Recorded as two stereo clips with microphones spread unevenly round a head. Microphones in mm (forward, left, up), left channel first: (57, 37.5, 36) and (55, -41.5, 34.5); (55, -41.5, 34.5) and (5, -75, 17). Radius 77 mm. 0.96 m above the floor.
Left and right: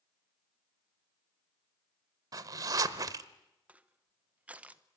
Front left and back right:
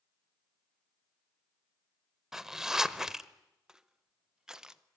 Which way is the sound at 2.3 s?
55° right.